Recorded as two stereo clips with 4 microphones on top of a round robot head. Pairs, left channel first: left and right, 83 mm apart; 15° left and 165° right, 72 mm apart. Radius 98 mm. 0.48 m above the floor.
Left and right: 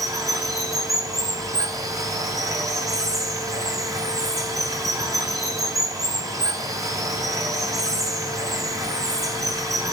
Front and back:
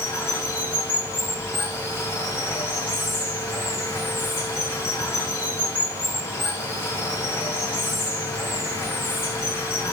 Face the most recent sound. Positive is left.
turn(degrees=-45)